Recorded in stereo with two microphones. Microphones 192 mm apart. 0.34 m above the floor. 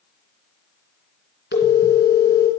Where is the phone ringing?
70° left (ahead or behind), 2.5 m.